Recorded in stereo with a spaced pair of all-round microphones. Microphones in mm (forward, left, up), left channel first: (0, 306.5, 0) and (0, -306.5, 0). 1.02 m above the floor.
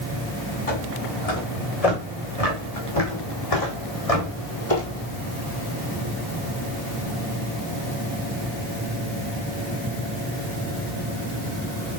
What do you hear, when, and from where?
0.7 s footsteps: 70° left (ahead or behind), 4 m; by 5.1 s 60° left (ahead or behind), 2.0 m